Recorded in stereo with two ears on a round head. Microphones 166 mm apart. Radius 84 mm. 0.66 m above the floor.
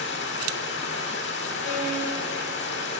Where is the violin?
80° left, 3.5 m.